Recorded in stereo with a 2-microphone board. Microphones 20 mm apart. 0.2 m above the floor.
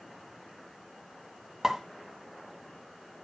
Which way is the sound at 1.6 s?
25° right (ahead or behind).